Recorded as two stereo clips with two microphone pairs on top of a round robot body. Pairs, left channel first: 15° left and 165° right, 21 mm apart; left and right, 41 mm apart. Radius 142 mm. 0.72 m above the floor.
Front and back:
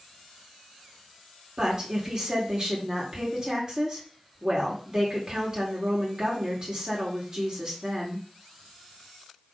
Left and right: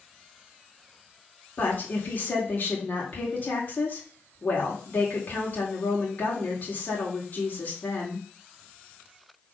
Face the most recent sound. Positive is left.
turn(degrees=140)